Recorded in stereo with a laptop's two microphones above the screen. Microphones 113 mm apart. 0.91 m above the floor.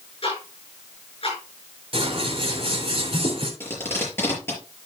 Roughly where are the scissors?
Right.